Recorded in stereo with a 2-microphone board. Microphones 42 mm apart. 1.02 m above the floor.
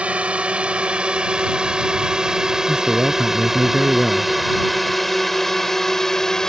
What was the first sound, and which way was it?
A drone, 30° right (ahead or behind).